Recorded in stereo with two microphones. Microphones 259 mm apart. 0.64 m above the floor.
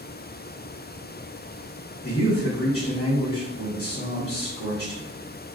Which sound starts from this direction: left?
A man speaking, at 2.0 s.